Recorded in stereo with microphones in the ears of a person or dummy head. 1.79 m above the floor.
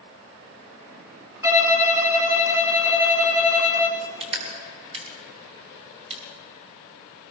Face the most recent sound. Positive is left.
turn(degrees=-35)  # may be behind; listen again after turning